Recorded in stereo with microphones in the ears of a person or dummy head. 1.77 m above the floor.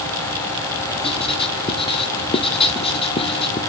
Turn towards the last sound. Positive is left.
turn(degrees=30)  # may be behind; listen again after turning